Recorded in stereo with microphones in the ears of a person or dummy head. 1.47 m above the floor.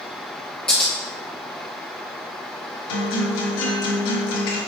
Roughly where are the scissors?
Centre.